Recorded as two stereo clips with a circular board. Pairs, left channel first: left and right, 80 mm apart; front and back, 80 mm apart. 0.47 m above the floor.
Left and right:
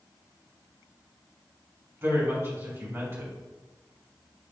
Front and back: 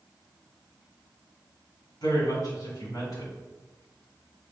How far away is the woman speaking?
About 3 m.